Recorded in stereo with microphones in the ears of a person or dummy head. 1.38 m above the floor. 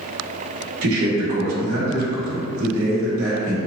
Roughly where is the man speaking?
Right.